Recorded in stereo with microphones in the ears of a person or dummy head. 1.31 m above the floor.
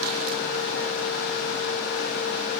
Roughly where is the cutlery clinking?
No cutlery clinking in this recording.